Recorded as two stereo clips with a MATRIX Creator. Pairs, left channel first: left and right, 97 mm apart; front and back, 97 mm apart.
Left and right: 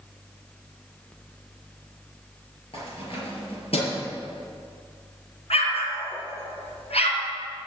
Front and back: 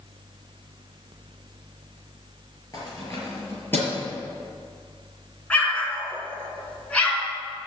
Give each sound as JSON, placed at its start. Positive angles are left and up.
{"t": 2.7, "sound": "keys jangling", "azimuth_deg": 55, "distance_m": 5.0}
{"t": 5.5, "sound": "an explosion", "azimuth_deg": 80, "distance_m": 3.0}